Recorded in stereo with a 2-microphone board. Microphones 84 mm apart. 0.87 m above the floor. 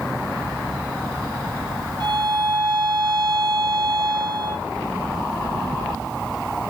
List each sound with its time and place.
2.0 s a violin: 60° right (ahead or behind), 2.5 m